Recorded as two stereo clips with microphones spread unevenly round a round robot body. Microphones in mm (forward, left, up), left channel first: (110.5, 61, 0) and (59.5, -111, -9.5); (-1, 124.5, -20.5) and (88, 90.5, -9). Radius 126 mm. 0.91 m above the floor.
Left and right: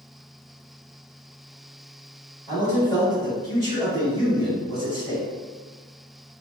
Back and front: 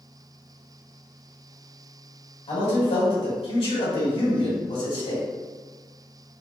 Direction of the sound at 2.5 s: 145° left.